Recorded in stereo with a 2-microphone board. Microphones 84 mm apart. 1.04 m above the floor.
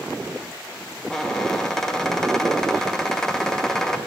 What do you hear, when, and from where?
1.1 s a squeak: 5° left (ahead or behind), 0.6 m